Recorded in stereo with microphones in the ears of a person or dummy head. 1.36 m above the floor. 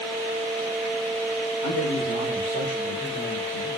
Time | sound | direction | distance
1.6 | a man speaking | 60° left (ahead or behind) | 2.5 m